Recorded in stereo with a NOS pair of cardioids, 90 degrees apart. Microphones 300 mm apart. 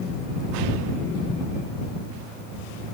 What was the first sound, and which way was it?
Only background noise.